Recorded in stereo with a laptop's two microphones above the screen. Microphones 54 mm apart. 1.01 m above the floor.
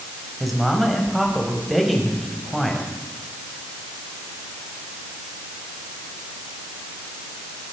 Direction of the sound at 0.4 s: Centre (ahead or behind).